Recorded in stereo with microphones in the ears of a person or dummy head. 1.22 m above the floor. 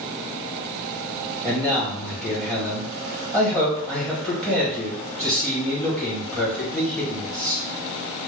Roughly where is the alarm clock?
No alarm clock in this recording.